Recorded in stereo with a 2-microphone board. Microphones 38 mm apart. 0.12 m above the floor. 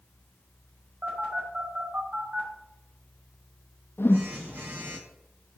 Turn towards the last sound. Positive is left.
turn(degrees=80)